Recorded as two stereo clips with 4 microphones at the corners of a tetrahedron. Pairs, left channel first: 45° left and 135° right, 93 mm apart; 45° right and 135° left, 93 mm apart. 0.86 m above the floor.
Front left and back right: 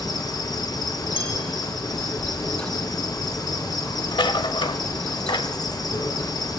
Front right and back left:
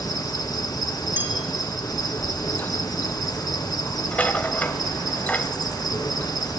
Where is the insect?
Straight ahead, 2.5 m.